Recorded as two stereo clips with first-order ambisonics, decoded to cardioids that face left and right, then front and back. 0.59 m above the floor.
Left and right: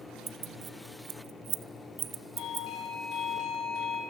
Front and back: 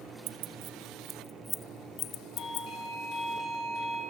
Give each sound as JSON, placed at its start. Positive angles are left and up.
{"t": 0.3, "sound": "keys jangling", "azimuth_deg": -155, "distance_m": 0.9}
{"t": 2.4, "sound": "a doorbell", "azimuth_deg": 55, "distance_m": 5.0}